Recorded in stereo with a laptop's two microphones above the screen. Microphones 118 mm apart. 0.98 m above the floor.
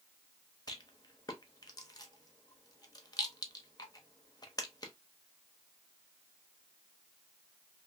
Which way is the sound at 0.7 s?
35° left (ahead or behind).